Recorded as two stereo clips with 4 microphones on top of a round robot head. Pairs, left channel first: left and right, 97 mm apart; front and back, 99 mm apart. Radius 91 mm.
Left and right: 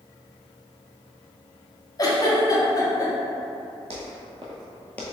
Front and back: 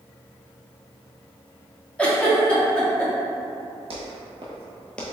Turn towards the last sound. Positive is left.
turn(degrees=55)